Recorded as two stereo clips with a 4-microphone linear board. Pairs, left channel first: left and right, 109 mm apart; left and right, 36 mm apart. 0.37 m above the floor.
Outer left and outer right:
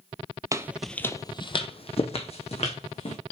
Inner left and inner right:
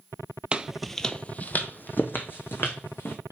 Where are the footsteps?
30° right (ahead or behind), 0.6 m; by 3.1 s 75° left (ahead or behind), 2 m.